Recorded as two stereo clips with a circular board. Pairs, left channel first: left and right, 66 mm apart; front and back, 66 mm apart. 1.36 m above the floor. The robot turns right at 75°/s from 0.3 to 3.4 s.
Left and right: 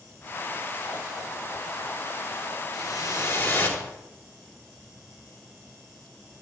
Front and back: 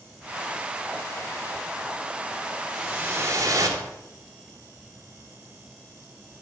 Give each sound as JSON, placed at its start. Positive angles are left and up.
{"t": 2.7, "sound": "a whoosh", "azimuth_deg": 95, "distance_m": 4.0}